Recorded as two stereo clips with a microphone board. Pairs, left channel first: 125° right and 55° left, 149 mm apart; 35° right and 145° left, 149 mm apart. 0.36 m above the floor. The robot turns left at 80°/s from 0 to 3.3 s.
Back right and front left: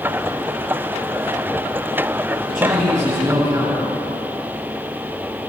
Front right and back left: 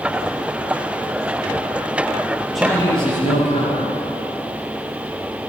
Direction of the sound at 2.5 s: 60° left.